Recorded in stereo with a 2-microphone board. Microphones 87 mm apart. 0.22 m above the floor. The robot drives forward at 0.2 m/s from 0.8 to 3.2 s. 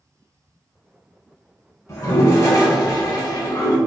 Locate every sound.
1.9 s a toilet flushing: 40° left (ahead or behind), 0.7 m; by 3.8 s 50° left (ahead or behind), 0.6 m